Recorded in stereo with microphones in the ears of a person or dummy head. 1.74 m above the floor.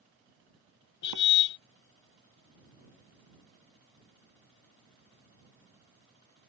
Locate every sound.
1.0 s a car horn: 65° left (ahead or behind)